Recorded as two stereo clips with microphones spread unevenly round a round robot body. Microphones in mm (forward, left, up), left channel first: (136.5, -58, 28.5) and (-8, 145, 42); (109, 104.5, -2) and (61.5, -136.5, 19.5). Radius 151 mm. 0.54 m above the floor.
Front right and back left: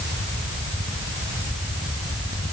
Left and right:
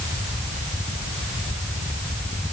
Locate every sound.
Only background noise.